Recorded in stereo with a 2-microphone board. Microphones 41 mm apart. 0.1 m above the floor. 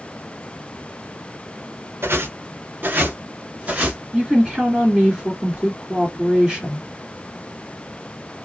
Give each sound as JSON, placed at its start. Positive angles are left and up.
{"t": 2.0, "sound": "footsteps", "side_deg": -70, "distance_m": 0.9}
{"t": 4.1, "sound": "a woman speaking", "side_deg": -15, "distance_m": 1.7}